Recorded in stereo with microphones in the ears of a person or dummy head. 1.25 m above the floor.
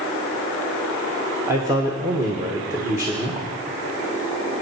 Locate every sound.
1.5 s a man speaking: 10° right (ahead or behind), 1.4 m